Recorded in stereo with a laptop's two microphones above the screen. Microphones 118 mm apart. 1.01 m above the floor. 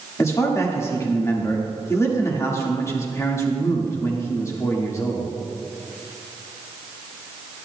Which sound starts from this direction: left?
A man speaking, at 0.2 s.